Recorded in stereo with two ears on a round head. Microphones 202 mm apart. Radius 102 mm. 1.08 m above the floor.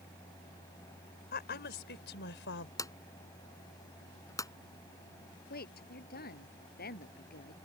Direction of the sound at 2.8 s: 15° left (ahead or behind).